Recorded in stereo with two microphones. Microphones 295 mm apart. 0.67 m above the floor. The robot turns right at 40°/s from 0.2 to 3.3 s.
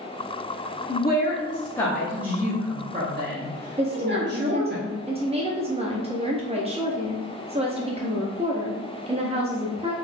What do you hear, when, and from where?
0.9 s a woman speaking: 135° left, 0.8 m; by 4.8 s 130° right, 0.8 m
3.8 s a woman speaking: 20° right (ahead or behind), 0.5 m